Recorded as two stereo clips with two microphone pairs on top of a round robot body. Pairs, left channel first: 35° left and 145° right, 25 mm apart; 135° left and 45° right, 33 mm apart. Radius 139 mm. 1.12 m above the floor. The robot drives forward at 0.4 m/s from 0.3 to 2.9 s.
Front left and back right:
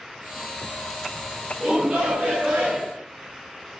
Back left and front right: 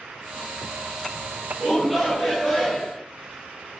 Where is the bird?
No bird in this recording.